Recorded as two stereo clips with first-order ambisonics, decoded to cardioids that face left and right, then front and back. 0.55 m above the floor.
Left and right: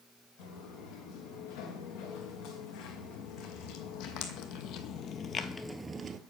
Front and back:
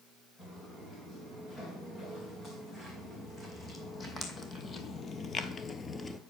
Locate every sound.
0.4 s footsteps: 75° left, 3.5 m; by 6.2 s 70° right, 0.6 m